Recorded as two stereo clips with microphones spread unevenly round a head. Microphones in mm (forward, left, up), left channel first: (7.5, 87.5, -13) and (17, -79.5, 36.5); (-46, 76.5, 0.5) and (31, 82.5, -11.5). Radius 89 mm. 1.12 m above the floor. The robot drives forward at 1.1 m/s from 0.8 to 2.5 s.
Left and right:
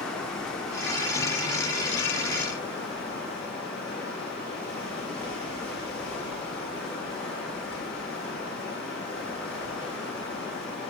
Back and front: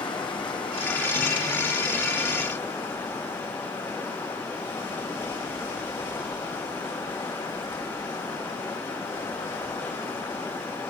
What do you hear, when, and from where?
0.0 s running water: straight behind, 2.0 m